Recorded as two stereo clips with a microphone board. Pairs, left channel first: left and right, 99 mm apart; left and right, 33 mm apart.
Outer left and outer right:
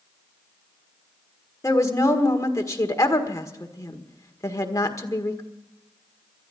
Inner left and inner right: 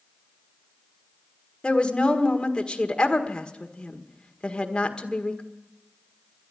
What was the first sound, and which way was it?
A woman speaking, 30° left (ahead or behind).